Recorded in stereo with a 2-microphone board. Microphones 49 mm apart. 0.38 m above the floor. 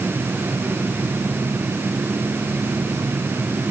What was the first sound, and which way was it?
Only background noise.